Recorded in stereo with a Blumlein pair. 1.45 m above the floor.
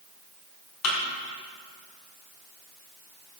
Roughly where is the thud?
Ahead left.